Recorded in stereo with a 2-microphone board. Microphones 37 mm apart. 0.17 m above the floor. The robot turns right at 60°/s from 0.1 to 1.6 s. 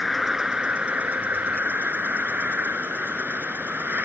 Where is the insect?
Straight behind; by 4.1 s 90° right.